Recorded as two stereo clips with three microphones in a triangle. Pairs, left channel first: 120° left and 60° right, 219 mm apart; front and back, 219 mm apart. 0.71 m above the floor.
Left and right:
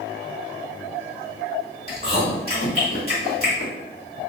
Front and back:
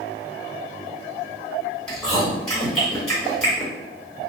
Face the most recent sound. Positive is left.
turn(degrees=85)